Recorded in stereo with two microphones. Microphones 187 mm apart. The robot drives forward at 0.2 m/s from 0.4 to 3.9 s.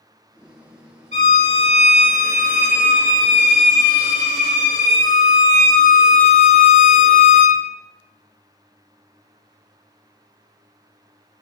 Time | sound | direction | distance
1.1 | a violin | 65° right (ahead or behind) | 1.1 m